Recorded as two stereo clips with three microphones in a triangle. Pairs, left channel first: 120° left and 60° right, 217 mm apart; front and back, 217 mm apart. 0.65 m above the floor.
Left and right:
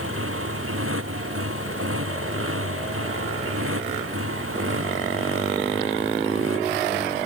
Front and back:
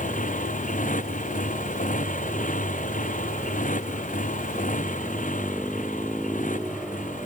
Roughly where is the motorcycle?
Ahead right.